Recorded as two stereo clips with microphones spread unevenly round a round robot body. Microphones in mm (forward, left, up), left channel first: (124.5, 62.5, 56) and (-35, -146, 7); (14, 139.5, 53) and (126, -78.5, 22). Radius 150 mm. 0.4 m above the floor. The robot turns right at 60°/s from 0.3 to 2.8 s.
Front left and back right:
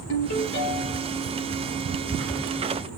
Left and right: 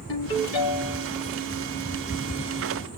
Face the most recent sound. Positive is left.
turn(degrees=-120)